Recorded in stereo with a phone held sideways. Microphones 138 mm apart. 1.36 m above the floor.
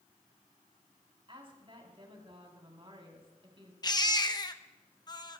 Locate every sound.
1.3 s a woman speaking: 40° right (ahead or behind), 3.5 m
3.8 s a baby crying: 30° left (ahead or behind), 0.8 m